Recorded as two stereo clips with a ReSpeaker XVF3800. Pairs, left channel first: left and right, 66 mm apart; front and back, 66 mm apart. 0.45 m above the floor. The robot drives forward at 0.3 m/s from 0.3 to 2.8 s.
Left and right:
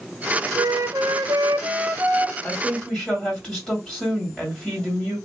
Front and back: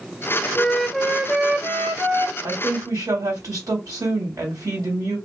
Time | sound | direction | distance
0.6 | a flute | 70° right | 0.5 m
2.4 | a woman speaking | 165° left | 2 m